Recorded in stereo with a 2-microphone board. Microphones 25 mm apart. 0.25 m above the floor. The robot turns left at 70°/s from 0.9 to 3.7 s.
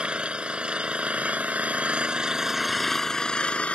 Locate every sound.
0.0 s an engine running: 50° right; by 3.8 s 115° left